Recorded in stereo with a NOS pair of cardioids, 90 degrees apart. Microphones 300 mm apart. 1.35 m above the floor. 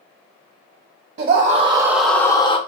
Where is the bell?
I don't hear a bell.